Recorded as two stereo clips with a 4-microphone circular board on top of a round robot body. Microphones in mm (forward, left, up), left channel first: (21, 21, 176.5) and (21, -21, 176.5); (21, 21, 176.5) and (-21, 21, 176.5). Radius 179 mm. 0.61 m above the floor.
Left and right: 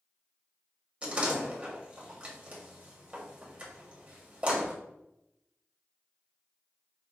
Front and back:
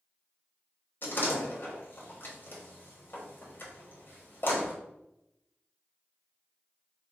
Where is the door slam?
30° right, 1.5 m.